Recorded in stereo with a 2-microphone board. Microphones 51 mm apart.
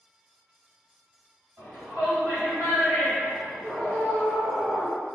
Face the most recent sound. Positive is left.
turn(degrees=15)  # may be behind; listen again after turning